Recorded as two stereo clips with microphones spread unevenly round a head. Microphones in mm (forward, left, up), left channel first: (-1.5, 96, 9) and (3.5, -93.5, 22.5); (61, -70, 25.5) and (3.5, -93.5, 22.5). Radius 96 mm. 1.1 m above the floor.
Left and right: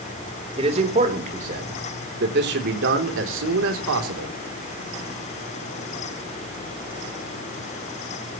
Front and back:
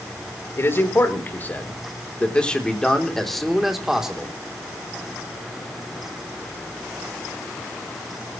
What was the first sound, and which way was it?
A man speaking, 25° right.